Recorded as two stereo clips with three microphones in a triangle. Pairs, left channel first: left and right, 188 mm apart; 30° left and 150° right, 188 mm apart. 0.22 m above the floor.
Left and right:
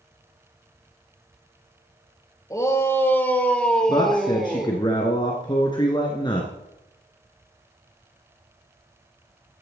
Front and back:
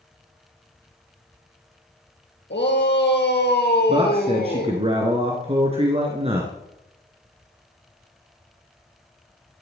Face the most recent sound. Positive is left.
turn(degrees=155)